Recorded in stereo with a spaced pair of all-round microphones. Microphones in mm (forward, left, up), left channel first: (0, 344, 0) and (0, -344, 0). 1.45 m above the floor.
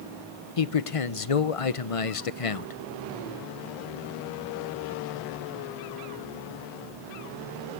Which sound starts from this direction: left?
A man speaking, at 0.6 s.